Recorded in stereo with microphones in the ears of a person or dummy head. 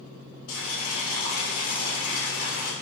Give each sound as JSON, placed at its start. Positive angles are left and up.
{"t": 0.5, "sound": "boiling", "side_deg": 70, "distance_m": 1.5}